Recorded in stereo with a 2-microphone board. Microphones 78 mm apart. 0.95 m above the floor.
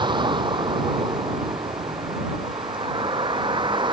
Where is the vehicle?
90° right; by 3.9 s 85° right.